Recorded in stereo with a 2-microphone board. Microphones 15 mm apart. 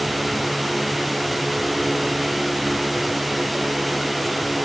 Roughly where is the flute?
No flute in this recording.